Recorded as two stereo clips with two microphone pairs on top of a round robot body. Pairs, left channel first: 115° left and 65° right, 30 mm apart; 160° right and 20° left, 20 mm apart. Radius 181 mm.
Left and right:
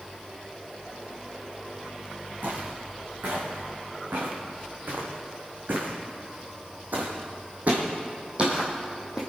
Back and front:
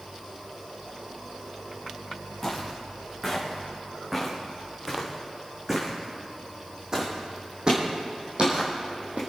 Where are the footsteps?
65° right, 4.5 m; by 9.2 s 5° left, 1.7 m.